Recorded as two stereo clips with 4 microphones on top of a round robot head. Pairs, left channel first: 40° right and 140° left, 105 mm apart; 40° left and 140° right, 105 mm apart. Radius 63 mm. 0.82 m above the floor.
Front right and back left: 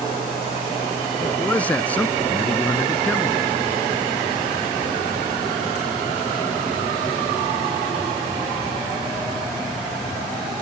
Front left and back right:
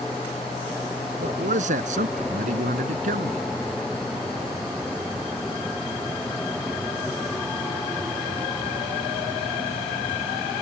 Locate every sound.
1.2 s a man speaking: 120° right